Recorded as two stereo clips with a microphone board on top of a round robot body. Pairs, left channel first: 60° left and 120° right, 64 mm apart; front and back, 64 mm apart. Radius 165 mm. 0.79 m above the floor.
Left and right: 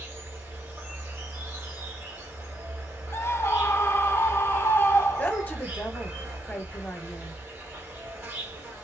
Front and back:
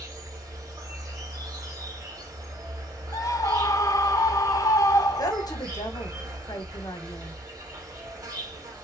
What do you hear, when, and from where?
0.0 s an insect: straight behind, 2.5 m
3.1 s a scream: 15° left, 0.9 m
5.2 s a woman speaking: straight ahead, 1.0 m